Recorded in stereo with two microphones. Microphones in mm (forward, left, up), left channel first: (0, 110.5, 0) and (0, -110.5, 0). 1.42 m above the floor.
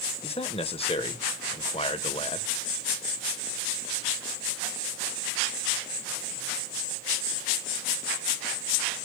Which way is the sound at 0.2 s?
25° left (ahead or behind).